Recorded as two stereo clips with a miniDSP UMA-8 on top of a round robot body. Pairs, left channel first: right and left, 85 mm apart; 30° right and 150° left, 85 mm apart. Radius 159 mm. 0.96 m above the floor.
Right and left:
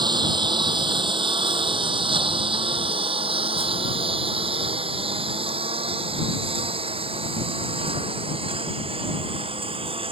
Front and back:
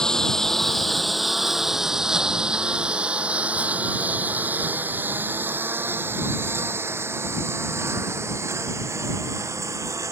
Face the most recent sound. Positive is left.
turn(degrees=95)